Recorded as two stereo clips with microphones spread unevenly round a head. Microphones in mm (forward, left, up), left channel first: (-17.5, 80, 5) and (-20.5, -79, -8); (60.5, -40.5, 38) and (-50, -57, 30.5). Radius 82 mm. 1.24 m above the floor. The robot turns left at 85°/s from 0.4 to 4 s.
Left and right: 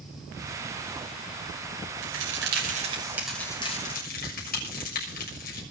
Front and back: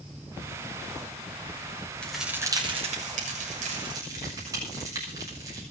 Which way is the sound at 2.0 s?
70° right.